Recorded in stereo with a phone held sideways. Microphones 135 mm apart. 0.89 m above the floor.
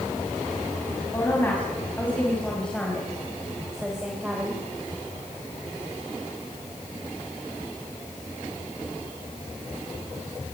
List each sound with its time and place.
1.1 s a woman speaking: 15° left (ahead or behind), 6 m; by 4.6 s 15° right (ahead or behind), 4 m